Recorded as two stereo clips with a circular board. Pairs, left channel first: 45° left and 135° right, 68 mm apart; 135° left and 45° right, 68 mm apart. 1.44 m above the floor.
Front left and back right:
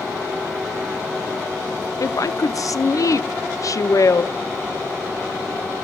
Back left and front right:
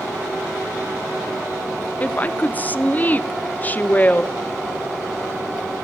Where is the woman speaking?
75° left, 0.6 m.